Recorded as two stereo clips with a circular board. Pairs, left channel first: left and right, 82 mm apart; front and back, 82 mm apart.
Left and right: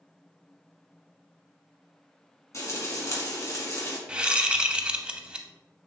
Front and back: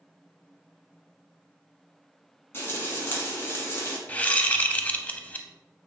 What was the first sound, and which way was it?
Frying, 55° left.